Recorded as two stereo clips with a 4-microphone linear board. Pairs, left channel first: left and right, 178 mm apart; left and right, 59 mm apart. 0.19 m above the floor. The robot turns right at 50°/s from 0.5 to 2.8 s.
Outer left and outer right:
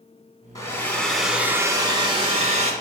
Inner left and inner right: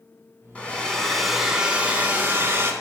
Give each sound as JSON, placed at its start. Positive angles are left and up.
{"t": 0.6, "sound": "a hair dryer", "azimuth_deg": 150, "distance_m": 1.1}